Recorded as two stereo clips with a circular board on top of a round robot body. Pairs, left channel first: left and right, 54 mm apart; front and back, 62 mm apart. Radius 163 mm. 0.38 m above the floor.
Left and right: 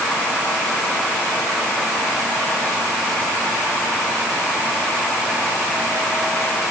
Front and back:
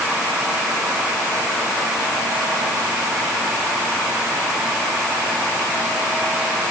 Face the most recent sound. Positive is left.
No sound to turn to.